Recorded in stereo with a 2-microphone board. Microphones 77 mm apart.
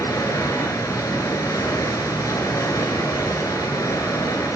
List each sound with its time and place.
0.0 s running water: 50° left (ahead or behind), 1.1 m